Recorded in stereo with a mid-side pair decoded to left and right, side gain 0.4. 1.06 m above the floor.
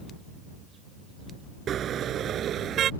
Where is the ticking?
No ticking in this recording.